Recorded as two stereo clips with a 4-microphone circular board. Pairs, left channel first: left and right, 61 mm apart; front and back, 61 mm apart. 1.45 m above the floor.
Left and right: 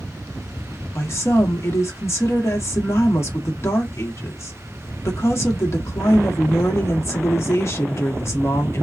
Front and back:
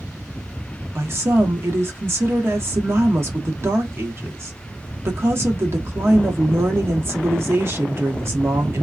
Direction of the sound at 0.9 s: 130° left.